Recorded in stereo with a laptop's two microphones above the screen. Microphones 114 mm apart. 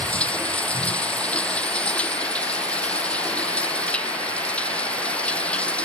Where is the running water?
10° left (ahead or behind).